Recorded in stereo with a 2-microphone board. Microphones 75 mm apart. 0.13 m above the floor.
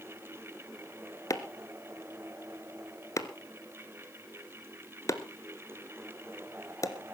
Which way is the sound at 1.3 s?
45° left (ahead or behind).